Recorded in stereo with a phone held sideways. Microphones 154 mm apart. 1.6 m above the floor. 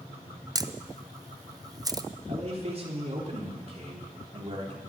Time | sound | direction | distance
0.6 | a camera shutter | 25° right (ahead or behind) | 0.6 m
2.3 | a man speaking | 40° right (ahead or behind) | 3 m